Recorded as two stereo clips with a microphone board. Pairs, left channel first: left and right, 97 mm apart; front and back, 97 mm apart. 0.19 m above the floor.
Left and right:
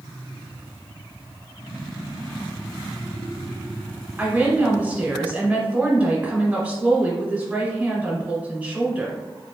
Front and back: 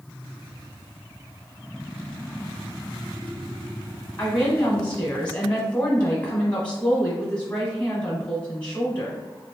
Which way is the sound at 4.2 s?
45° right.